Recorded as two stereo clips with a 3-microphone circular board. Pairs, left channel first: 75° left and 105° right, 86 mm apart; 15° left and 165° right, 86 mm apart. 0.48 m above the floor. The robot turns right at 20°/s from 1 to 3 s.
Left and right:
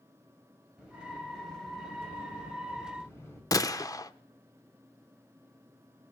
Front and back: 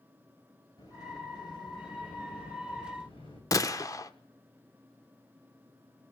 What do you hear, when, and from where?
0.8 s a sliding door: 25° right, 3 m; by 3.4 s 15° left, 3 m
3.5 s a gunshot: 45° left, 0.6 m